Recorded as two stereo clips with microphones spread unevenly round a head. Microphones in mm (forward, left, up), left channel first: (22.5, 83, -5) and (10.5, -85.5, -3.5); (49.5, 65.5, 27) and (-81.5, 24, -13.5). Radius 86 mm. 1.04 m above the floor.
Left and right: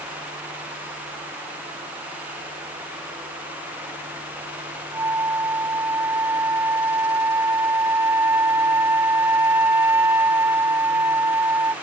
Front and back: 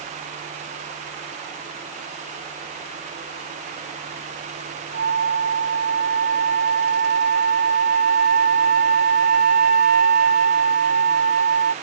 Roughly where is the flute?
Behind.